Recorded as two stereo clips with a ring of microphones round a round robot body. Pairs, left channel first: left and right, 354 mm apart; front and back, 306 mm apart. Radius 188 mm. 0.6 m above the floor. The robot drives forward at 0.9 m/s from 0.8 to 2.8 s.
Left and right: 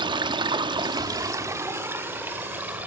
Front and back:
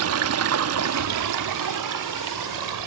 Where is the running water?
165° right, 0.9 m; by 2.9 s 175° right, 2.5 m.